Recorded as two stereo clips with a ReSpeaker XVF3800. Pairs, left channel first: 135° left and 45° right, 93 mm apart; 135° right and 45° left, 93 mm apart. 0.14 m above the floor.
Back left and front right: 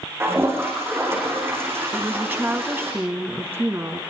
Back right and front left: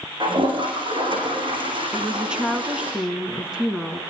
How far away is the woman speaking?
About 1.7 m.